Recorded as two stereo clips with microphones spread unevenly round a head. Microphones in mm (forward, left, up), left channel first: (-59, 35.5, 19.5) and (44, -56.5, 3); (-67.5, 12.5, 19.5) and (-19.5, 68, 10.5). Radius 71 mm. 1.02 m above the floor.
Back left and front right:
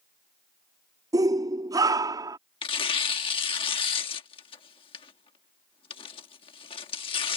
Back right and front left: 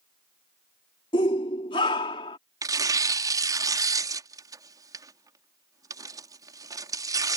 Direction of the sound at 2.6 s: 80° left.